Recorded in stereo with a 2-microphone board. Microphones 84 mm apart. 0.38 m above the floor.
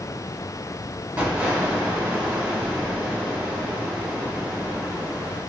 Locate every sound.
1.2 s an explosion: 20° right (ahead or behind), 0.8 m